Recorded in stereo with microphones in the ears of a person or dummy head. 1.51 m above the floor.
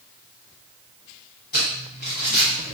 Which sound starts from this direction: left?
Crumpling, at 1.5 s.